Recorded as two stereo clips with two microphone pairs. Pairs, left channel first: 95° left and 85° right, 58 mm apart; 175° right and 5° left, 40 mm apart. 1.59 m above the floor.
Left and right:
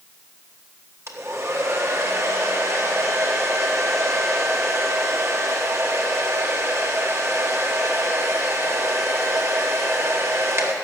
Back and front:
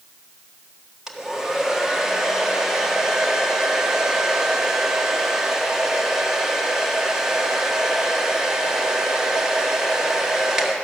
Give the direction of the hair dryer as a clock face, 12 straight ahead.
2 o'clock.